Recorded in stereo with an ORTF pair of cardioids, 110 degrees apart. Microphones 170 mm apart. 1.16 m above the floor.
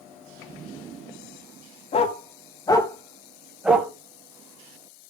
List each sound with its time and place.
1.9 s a dog barking: 40° left, 3 m; by 3.9 s 15° right, 2.5 m